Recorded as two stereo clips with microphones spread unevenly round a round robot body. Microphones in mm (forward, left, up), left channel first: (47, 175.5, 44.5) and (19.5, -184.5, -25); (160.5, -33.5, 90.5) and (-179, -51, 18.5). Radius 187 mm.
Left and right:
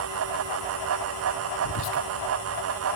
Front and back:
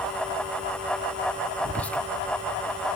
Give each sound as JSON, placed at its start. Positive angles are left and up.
{"t": 1.6, "sound": "whispering", "azimuth_deg": 110, "distance_m": 0.8}